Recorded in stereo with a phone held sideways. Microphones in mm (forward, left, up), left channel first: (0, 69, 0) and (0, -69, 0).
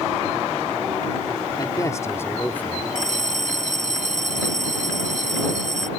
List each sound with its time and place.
1.6 s a man speaking: 30° left (ahead or behind); by 2.9 s 10° left (ahead or behind)
3.0 s a bell: 70° right (ahead or behind)